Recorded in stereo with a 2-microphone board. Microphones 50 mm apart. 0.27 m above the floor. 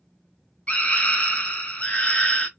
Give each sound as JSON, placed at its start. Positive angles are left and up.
{"t": 0.7, "sound": "a scream", "side_deg": 30, "distance_m": 1.3}